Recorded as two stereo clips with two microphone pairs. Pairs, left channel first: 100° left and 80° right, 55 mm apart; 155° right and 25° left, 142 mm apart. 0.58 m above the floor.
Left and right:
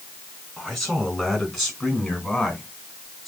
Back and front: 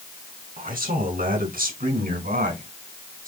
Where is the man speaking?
10° left, 5 m.